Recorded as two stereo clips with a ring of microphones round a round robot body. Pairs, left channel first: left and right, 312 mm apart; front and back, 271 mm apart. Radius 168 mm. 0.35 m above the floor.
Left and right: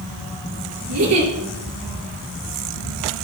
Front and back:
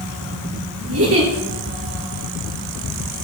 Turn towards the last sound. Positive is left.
turn(degrees=-135)